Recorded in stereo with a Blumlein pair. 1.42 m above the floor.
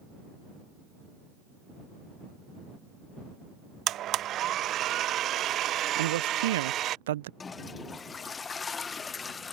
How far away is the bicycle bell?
I don't hear a bicycle bell.